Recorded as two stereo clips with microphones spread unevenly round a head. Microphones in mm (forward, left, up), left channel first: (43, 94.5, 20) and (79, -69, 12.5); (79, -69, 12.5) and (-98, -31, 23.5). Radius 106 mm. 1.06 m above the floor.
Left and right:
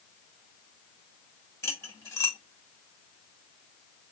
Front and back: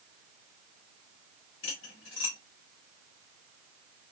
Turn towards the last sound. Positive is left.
turn(degrees=30)